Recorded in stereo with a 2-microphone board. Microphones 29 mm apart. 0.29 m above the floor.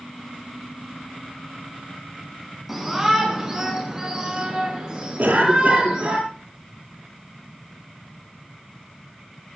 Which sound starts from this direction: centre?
A shout, at 2.7 s.